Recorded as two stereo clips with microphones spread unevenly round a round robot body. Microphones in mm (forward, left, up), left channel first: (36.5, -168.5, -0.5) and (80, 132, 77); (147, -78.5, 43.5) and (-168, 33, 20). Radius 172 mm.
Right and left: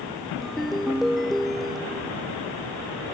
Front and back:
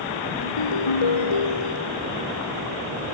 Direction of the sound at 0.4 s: 10° right.